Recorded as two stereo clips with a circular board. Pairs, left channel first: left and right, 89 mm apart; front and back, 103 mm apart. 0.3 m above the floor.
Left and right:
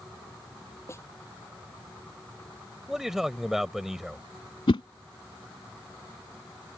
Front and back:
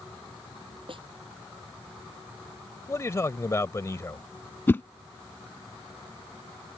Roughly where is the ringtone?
No ringtone in this recording.